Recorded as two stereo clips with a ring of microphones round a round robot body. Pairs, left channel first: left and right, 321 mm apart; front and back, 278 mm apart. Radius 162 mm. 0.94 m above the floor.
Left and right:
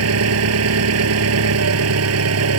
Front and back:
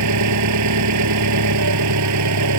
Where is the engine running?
135° right.